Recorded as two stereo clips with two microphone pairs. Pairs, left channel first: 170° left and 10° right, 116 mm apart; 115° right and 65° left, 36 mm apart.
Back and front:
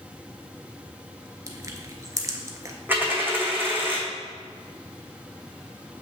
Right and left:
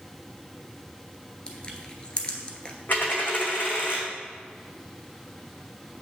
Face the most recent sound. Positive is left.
turn(degrees=-85)